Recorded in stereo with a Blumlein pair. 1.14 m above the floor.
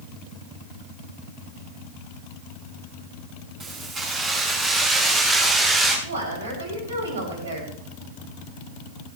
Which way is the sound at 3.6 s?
25° right.